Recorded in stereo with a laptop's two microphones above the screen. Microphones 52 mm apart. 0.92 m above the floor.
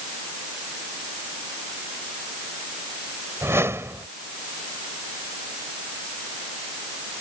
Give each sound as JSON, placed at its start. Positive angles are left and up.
{"t": 3.4, "sound": "a whoosh", "side_deg": -55}